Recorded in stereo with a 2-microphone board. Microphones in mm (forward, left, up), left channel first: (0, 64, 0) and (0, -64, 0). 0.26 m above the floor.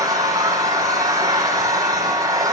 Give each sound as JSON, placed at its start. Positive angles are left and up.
{"t": 0.0, "sound": "an engine running", "side_deg": -25, "distance_m": 7.0}